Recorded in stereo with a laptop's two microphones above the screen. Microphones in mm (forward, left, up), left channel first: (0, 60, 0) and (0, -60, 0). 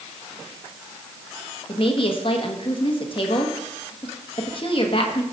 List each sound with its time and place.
1.7 s a woman speaking: 45° left (ahead or behind), 1.3 m